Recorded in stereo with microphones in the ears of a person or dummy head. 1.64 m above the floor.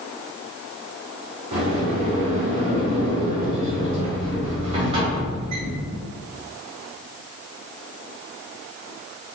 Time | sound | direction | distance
1.5 | a sliding door | 35° right (ahead or behind) | 1.2 m